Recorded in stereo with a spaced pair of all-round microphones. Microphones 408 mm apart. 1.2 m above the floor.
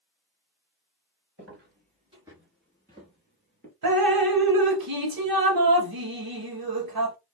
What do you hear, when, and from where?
1.4 s footsteps: 30° right (ahead or behind), 1.4 m; by 3.7 s 30° left (ahead or behind), 1.4 m
3.8 s dripping: 60° right (ahead or behind), 0.7 m